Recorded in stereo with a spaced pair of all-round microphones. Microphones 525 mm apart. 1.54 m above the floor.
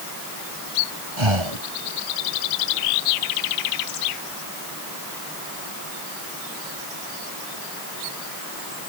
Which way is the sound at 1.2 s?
65° right (ahead or behind).